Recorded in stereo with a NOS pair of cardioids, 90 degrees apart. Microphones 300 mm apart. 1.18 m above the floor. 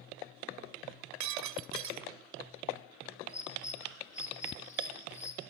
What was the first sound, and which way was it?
Breaking glass, 70° right.